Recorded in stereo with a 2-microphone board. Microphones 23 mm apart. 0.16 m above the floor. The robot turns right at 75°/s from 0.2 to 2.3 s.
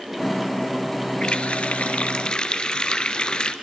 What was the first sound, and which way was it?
A running tap, 50° left.